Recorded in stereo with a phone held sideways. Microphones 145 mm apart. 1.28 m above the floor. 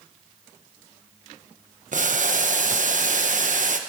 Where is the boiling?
65° right (ahead or behind), 1.0 m.